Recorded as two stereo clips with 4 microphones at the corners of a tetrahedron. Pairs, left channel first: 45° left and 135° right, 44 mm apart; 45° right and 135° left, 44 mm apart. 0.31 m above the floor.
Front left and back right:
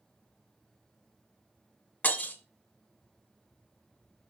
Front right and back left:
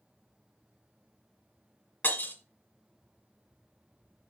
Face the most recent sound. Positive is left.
turn(degrees=0)